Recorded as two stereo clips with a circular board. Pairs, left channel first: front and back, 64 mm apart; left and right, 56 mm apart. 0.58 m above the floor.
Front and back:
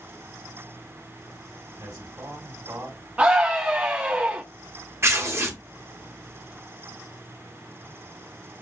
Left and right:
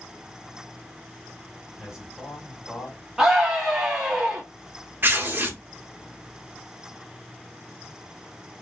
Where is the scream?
150° right, 0.6 m.